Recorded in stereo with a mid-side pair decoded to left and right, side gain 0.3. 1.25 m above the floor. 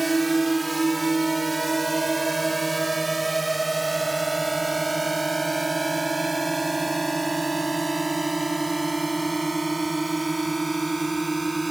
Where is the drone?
30° right; by 11.7 s 25° right.